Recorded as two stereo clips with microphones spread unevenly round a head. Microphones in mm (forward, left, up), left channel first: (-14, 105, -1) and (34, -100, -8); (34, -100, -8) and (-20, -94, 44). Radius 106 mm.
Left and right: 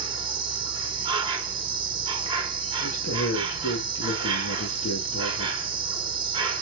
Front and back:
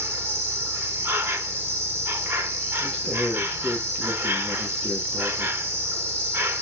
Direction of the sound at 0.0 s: 75° right.